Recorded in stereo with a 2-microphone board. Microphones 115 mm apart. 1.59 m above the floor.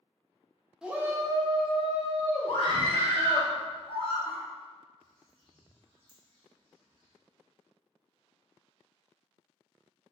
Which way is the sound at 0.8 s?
5° right (ahead or behind).